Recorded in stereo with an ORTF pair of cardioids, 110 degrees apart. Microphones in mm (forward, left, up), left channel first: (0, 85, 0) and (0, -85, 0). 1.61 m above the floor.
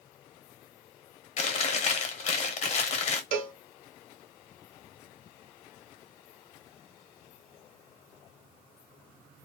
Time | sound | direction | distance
1.4 | chewing | 40° left | 0.8 m
3.3 | a cowbell | 60° right | 0.8 m